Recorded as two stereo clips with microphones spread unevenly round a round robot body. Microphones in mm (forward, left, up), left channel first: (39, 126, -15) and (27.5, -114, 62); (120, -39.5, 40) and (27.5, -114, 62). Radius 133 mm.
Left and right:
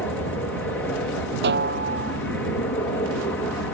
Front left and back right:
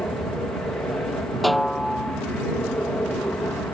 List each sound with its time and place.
0.0 s an aircraft: 95° left
1.4 s a snare drum: 50° right